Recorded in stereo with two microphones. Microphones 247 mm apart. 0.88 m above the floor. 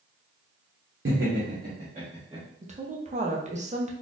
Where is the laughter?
55° right (ahead or behind), 0.8 m; by 2.5 s 20° right (ahead or behind), 1.4 m.